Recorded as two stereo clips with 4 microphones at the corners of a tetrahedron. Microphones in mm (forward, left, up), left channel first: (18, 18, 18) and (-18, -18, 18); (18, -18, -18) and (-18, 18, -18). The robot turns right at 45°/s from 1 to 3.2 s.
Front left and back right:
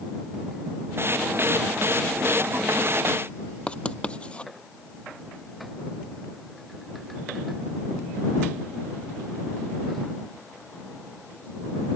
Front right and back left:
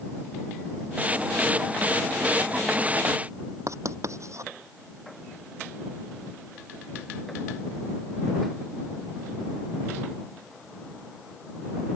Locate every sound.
3.7 s writing: 115° left